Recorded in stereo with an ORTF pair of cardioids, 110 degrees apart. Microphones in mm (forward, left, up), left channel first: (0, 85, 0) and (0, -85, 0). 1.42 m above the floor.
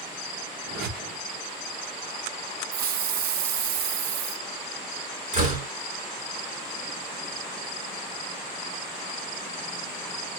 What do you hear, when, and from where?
0.7 s a whoosh: 65° right, 1.8 m
2.7 s a hiss: 65° right, 0.6 m
5.3 s a door slam: 45° right, 3 m